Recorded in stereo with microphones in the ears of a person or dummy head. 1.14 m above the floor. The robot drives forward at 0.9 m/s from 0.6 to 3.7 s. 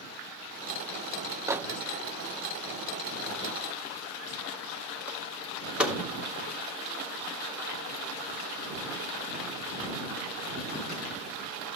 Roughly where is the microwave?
Centre.